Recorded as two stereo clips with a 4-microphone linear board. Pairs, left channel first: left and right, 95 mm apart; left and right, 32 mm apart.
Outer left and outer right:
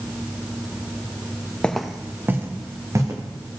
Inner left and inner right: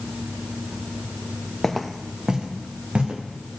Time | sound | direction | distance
1.6 | footsteps | 10° left (ahead or behind) | 0.8 m